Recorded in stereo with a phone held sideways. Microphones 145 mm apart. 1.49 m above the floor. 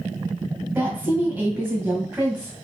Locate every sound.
0.8 s a woman speaking: 15° right (ahead or behind), 1.6 m